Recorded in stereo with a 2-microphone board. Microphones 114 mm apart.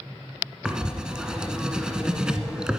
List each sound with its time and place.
0.7 s writing: 5° right (ahead or behind), 1.1 m